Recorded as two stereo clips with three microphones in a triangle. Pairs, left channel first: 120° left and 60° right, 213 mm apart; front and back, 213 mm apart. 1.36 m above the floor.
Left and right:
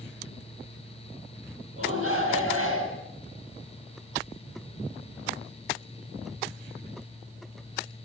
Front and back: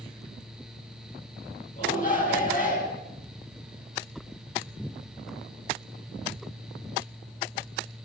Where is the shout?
50° right, 7 m.